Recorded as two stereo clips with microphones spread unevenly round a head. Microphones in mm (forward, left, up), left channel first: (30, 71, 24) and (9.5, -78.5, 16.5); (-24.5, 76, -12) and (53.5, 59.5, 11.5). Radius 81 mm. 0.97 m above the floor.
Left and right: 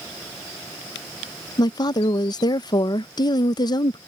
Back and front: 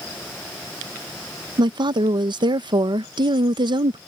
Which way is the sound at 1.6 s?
20° left.